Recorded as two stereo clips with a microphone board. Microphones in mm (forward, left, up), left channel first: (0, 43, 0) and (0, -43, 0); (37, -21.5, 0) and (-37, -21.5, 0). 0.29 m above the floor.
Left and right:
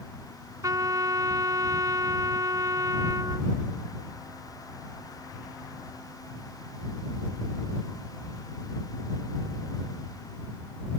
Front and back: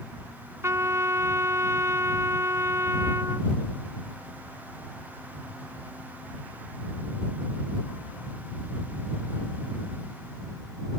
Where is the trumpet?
130° right.